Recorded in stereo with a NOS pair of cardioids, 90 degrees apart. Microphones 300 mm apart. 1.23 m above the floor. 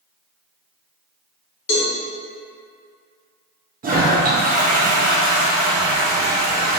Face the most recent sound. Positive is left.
turn(degrees=-30)